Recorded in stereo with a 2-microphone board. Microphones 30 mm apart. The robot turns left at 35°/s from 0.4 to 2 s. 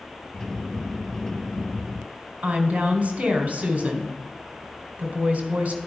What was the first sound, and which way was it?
A woman speaking, 55° right (ahead or behind).